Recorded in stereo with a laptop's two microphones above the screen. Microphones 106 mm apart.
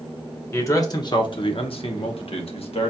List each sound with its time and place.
0.5 s a man speaking: 25° left (ahead or behind), 0.8 m; by 2.9 s 65° left (ahead or behind), 1.3 m